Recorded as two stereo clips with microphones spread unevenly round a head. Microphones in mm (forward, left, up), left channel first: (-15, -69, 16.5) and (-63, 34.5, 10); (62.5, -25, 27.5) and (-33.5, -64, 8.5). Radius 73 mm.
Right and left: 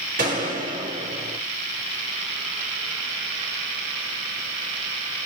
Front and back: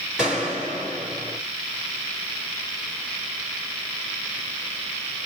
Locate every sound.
0.2 s a gunshot: 115° left, 2.5 m